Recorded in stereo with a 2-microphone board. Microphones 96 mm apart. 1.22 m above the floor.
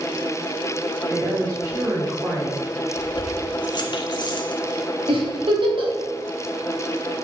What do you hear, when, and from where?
1.1 s a woman speaking: 30° right (ahead or behind), 3 m
3.0 s keys jangling: 50° left (ahead or behind), 1.3 m
5.1 s a giggle: 65° right (ahead or behind), 2.5 m